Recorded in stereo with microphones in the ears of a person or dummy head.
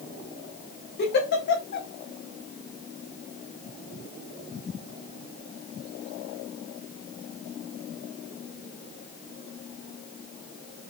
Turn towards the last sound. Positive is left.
turn(degrees=55)  # may be behind; listen again after turning